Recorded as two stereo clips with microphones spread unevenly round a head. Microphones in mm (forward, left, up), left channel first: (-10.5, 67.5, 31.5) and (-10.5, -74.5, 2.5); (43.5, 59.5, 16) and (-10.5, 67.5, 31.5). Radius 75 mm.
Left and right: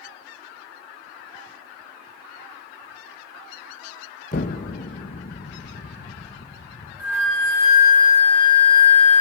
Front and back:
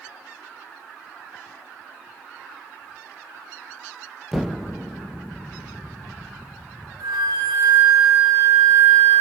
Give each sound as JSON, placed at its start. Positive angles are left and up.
{"t": 4.3, "sound": "an explosion", "azimuth_deg": 95, "distance_m": 0.8}
{"t": 7.0, "sound": "a flute", "azimuth_deg": -170, "distance_m": 7.0}